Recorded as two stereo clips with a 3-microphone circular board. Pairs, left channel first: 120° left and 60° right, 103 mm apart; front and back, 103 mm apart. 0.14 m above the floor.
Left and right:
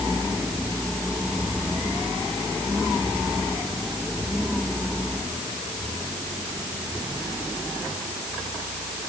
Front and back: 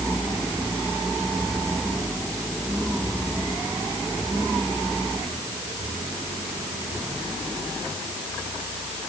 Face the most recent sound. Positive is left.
No sound to turn to.